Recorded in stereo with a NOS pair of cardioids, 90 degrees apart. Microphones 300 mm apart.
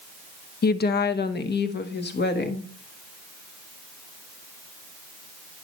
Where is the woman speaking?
30° left, 0.7 m; by 2.7 s 35° left, 1.8 m.